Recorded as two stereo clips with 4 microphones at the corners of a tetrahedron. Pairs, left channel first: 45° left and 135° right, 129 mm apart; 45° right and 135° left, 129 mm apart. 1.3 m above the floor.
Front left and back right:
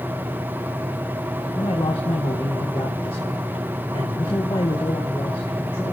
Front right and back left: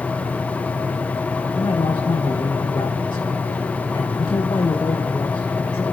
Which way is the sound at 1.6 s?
5° left.